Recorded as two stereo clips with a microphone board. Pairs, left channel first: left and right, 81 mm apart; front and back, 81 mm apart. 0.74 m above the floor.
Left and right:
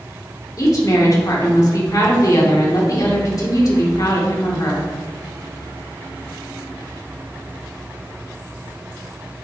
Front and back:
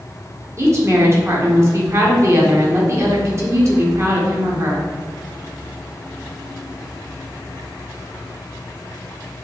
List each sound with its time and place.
0.6 s a woman speaking: 130° left, 1.8 m